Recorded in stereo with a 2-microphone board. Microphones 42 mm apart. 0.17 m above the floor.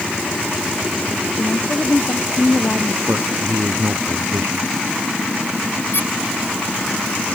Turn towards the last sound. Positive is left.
turn(degrees=60)  # may be behind; listen again after turning